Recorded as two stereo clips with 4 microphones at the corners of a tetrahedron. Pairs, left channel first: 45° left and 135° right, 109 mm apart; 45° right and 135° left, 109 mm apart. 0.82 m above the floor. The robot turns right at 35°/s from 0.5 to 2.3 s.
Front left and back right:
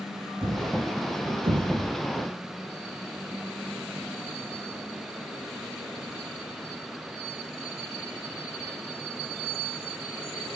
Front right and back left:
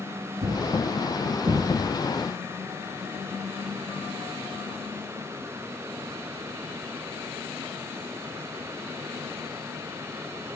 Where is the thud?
155° left, 3 m; by 2.0 s 155° right, 3 m.